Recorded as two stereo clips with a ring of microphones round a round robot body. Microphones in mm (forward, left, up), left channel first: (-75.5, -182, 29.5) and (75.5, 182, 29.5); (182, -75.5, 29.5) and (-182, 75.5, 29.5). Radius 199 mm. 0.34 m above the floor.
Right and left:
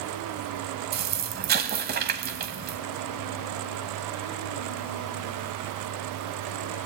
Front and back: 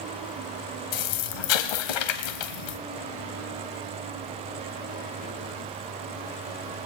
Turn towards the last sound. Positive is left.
turn(degrees=0)